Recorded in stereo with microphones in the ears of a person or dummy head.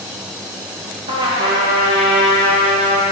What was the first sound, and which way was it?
A trumpet, 30° right (ahead or behind).